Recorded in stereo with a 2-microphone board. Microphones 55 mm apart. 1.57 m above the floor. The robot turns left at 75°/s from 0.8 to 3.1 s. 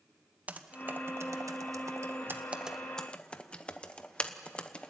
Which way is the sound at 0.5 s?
30° right (ahead or behind).